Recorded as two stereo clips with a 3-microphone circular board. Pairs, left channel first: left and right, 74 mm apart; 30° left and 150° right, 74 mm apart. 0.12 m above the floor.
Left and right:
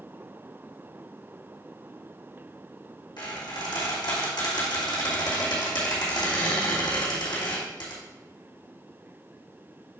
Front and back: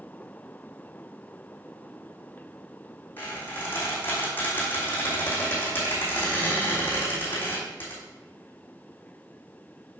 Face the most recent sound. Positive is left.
turn(degrees=95)